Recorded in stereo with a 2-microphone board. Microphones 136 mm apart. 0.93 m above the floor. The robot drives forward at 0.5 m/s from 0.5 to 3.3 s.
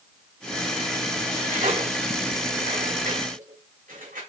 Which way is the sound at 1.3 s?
80° right.